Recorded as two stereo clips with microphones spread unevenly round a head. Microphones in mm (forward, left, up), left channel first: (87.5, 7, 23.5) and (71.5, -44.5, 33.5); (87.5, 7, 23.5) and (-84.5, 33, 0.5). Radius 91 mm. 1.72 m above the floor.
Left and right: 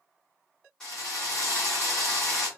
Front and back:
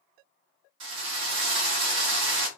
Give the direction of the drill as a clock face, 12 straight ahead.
7 o'clock.